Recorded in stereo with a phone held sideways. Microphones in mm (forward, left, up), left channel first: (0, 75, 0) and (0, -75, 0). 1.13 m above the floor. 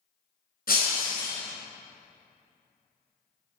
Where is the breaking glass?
85° left, 3.5 m.